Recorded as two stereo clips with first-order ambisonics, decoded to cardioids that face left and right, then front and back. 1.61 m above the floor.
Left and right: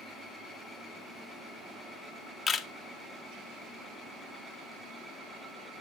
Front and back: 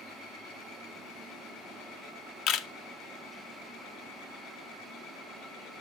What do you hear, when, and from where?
2.5 s a camera shutter: 20° left, 0.6 m